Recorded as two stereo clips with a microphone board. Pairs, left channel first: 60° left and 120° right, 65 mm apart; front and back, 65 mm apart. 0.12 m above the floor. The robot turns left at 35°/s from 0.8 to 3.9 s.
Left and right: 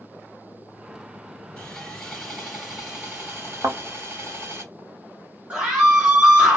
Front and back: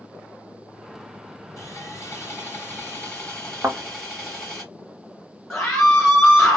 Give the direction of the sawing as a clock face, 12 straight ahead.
12 o'clock.